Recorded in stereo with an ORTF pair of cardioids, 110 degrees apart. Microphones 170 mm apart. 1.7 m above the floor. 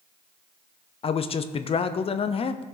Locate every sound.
1.0 s a man speaking: 35° left, 0.7 m